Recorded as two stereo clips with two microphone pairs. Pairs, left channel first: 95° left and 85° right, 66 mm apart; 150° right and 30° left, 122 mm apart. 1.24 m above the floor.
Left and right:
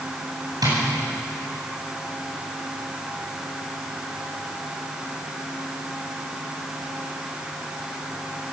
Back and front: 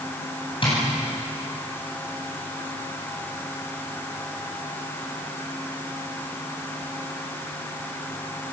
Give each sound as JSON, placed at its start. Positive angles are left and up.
{"t": 0.6, "sound": "tapping", "azimuth_deg": -105, "distance_m": 9.5}